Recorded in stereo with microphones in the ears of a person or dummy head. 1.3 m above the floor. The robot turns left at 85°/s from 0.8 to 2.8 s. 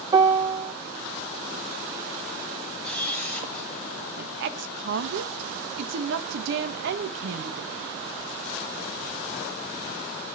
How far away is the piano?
About 0.8 m.